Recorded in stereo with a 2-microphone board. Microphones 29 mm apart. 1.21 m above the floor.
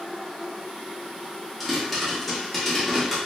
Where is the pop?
Centre (ahead or behind), 1.3 m.